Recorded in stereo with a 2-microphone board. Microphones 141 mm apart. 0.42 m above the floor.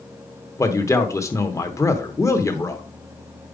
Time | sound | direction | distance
0.6 | a man speaking | 20° left (ahead or behind) | 0.8 m